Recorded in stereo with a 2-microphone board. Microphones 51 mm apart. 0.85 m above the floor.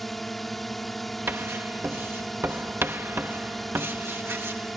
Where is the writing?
45° right (ahead or behind).